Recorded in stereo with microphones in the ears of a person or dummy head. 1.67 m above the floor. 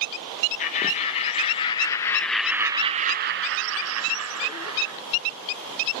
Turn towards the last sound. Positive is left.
turn(degrees=-80)